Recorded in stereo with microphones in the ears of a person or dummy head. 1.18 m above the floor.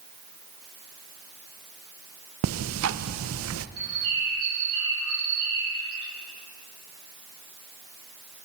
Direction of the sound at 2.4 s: 75° right (ahead or behind).